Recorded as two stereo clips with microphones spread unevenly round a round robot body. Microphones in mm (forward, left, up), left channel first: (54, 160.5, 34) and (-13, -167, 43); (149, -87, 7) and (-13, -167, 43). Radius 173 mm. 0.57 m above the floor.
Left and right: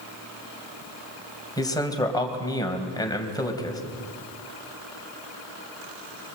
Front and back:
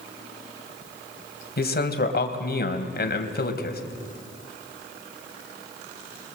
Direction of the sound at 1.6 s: Straight ahead.